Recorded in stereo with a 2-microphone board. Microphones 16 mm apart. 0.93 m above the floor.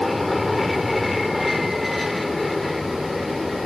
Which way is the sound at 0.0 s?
Centre (ahead or behind).